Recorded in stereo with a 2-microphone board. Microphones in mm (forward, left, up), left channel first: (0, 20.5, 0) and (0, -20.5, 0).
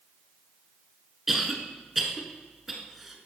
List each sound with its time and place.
1.3 s a cough: 5° right (ahead or behind), 1.2 m